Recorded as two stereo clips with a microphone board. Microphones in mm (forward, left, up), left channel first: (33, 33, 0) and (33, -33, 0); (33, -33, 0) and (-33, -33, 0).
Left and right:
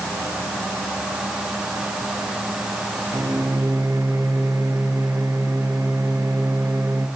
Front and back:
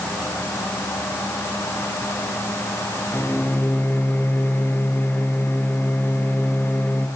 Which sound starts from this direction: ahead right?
A microwave, at 3.1 s.